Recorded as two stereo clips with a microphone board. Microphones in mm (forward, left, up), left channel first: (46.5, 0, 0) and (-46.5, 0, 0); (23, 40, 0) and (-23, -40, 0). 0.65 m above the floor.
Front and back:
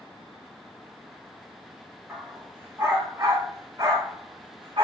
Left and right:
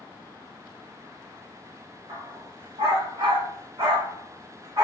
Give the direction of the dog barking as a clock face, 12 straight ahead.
4 o'clock.